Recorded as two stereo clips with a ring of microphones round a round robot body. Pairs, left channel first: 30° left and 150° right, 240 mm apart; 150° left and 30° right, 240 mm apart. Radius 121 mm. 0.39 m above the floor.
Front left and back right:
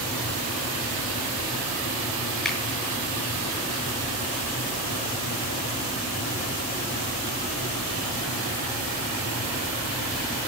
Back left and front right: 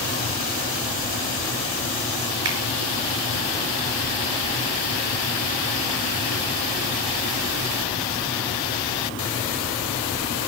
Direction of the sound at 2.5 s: 60° right.